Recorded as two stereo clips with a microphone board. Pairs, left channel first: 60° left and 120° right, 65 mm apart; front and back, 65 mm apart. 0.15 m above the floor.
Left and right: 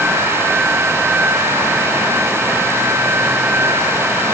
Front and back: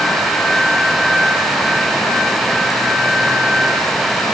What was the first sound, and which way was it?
Only background noise.